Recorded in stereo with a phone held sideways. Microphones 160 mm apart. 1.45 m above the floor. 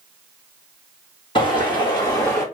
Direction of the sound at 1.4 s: 35° left (ahead or behind).